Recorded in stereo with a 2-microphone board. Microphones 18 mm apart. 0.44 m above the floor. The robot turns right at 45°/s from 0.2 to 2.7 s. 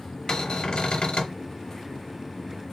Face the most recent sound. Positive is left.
turn(degrees=145)